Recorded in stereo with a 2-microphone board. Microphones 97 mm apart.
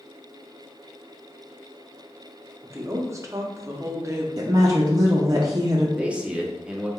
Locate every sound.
2.6 s a woman speaking: 30° right (ahead or behind), 0.6 m
4.4 s a woman speaking: 35° right (ahead or behind), 0.5 m
6.0 s a man speaking: 10° right (ahead or behind), 0.6 m